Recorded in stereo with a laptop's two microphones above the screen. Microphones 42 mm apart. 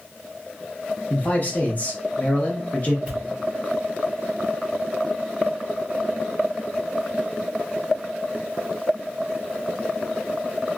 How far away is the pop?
About 1.4 m.